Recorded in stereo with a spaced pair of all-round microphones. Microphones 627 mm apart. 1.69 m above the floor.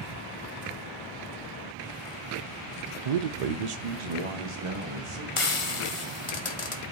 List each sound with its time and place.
3.0 s a man speaking: 65° right (ahead or behind), 0.6 m; by 5.3 s 50° right (ahead or behind), 2 m
5.4 s frying: 55° left (ahead or behind), 1.0 m